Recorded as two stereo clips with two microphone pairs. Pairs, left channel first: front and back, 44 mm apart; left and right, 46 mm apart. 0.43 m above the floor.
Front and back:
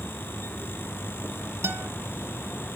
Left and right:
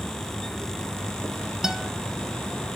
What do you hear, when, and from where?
1.6 s a guitar: 170° right, 0.8 m